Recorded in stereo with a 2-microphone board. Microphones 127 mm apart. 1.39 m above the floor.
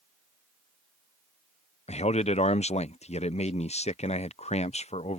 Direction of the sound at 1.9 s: 60° left (ahead or behind).